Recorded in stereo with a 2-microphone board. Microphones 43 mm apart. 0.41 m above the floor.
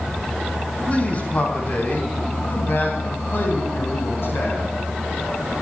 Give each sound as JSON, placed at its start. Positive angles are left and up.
{"t": 0.9, "sound": "a man speaking", "side_deg": 30, "distance_m": 3.5}